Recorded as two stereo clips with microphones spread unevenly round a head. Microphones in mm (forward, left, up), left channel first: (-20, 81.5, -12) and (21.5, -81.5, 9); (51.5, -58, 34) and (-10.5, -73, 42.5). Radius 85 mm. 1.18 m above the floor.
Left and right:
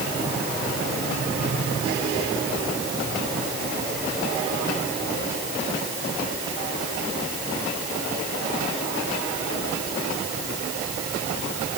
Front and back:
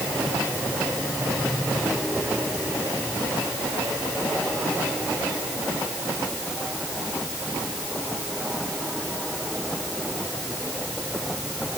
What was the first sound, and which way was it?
Only background noise.